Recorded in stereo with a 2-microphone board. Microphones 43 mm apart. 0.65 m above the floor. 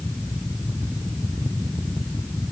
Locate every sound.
Only background noise.